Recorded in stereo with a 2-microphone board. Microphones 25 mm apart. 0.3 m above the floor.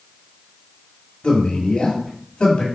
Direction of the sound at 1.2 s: 40° left (ahead or behind).